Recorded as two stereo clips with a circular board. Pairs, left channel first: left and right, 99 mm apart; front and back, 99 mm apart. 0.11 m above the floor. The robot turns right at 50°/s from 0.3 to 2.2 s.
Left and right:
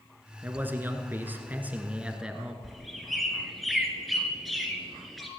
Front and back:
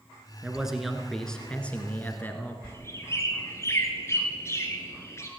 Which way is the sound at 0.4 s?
115° right.